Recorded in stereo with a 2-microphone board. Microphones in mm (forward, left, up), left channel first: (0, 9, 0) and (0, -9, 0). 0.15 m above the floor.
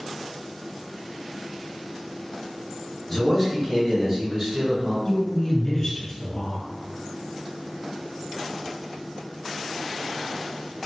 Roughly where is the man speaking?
Centre.